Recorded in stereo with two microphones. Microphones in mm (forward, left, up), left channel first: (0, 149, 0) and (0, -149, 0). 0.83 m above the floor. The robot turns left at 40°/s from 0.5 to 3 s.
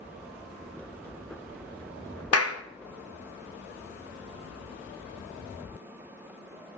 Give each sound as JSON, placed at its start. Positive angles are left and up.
{"t": 2.3, "sound": "a clap", "side_deg": 55, "distance_m": 0.5}